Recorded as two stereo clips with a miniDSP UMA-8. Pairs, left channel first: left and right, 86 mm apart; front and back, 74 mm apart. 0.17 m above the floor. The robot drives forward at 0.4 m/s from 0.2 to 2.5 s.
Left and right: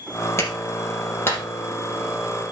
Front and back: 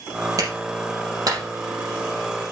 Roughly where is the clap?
Behind left.